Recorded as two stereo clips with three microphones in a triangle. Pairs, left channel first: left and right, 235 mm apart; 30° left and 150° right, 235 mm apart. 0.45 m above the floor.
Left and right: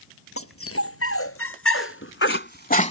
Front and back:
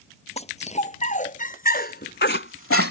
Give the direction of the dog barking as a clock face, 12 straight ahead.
9 o'clock.